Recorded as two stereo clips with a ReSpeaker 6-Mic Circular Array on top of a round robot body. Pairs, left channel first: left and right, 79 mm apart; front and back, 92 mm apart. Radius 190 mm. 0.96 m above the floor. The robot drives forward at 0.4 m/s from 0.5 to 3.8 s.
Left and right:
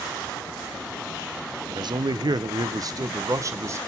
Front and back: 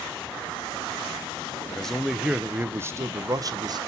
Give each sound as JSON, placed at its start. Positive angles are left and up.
{"t": 1.7, "sound": "a man speaking", "azimuth_deg": -80, "distance_m": 0.8}